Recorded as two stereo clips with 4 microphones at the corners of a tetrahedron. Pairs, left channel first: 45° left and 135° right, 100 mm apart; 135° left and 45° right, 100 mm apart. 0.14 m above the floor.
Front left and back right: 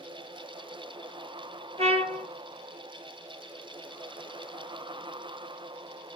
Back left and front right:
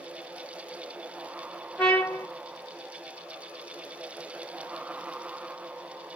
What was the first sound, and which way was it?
A trumpet, 145° right.